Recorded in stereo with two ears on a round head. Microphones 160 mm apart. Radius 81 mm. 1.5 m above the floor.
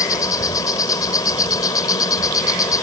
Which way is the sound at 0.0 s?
20° left (ahead or behind).